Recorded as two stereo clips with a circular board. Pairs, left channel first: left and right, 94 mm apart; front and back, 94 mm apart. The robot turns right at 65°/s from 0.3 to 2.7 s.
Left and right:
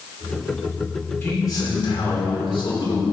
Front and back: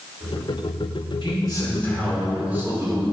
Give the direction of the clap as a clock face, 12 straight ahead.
No clap in this recording.